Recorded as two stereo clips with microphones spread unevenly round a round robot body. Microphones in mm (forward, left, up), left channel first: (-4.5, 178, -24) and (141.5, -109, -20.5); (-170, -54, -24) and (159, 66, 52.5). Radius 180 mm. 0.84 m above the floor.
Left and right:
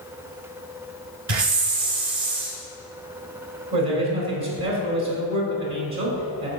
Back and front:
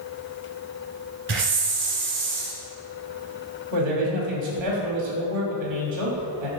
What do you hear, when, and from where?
1.3 s a hiss: 35° right, 1.8 m
3.7 s a man speaking: 25° right, 2.5 m